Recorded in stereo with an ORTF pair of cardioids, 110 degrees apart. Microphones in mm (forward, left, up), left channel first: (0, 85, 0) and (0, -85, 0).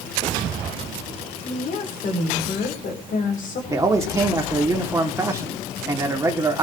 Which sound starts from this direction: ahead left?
A woman speaking, at 1.4 s.